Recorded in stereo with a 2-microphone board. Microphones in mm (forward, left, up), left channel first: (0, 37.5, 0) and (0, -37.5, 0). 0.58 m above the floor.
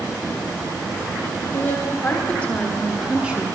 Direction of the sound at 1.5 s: 30° left (ahead or behind).